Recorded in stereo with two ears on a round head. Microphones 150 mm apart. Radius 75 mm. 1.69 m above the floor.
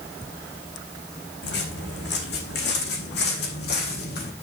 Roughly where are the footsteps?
Left.